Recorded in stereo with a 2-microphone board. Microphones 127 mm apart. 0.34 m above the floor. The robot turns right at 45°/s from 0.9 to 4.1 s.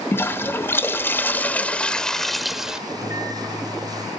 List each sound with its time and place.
0.1 s a toilet flushing: 20° left (ahead or behind), 1.1 m; by 2.8 s 5° right (ahead or behind), 1.1 m
2.9 s a microwave: 35° right, 4.5 m; by 4.1 s 20° left, 4.5 m